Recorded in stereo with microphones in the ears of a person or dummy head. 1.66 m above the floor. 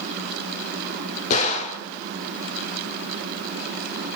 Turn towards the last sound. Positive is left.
turn(degrees=45)  # may be behind; listen again after turning